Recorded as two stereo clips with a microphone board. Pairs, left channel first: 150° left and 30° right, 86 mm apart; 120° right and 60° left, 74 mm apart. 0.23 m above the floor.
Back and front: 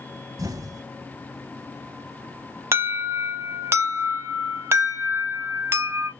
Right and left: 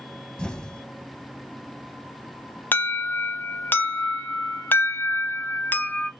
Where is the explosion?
45° right, 0.6 m.